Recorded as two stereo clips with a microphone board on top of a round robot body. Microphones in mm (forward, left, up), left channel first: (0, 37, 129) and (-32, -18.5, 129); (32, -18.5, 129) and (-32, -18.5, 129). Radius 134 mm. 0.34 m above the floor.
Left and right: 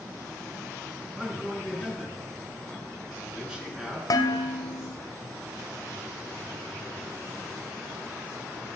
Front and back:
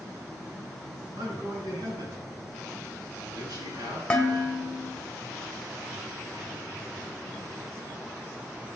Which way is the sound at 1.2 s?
160° left.